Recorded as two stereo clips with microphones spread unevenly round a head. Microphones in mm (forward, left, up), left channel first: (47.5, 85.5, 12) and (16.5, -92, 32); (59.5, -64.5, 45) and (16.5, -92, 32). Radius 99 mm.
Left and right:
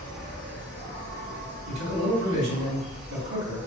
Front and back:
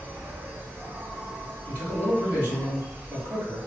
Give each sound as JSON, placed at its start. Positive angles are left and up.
{"t": 0.0, "sound": "an insect", "azimuth_deg": -90, "distance_m": 1.0}
{"t": 1.7, "sound": "a man speaking", "azimuth_deg": -100, "distance_m": 1.9}